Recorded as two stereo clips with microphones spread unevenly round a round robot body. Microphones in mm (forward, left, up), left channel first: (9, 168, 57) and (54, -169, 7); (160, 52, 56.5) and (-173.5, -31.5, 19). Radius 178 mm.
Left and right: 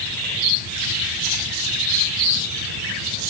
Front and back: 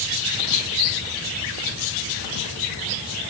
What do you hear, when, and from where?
Only background noise.